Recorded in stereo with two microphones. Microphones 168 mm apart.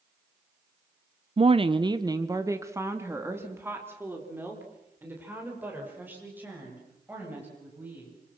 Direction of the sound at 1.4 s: 35° right (ahead or behind).